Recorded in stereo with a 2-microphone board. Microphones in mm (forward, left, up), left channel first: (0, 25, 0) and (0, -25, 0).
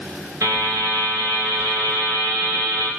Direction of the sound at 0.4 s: 70° right (ahead or behind).